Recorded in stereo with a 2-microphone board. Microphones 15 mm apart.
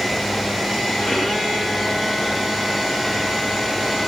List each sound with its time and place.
1.0 s a violin: 75° left (ahead or behind), 3.5 m